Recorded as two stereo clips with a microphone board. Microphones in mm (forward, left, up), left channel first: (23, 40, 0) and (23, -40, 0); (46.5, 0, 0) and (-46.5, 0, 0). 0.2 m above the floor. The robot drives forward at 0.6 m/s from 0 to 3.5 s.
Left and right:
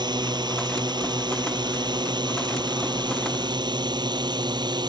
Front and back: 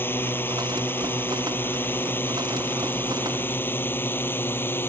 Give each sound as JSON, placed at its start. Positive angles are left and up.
{"t": 0.0, "sound": "a drone", "azimuth_deg": -70}